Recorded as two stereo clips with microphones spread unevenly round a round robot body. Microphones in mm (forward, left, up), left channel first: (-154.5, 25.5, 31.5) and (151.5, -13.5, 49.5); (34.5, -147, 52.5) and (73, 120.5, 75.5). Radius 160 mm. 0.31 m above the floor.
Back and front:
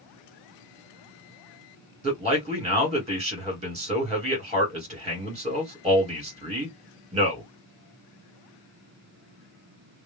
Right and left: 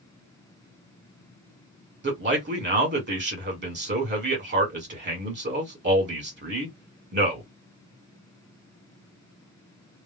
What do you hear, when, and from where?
2.0 s a man speaking: 55° left, 1.9 m